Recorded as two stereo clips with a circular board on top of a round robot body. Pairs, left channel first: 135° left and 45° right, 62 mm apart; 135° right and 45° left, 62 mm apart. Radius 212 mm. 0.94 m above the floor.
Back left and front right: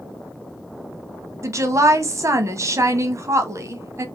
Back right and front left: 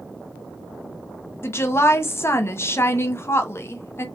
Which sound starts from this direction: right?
A woman speaking, at 1.4 s.